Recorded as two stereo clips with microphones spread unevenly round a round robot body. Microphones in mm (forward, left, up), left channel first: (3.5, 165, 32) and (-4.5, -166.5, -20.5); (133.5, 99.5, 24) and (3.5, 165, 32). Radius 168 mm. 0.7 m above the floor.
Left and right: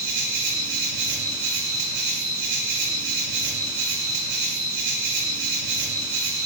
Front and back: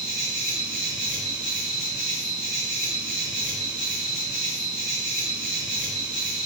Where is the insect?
105° right, 0.8 m.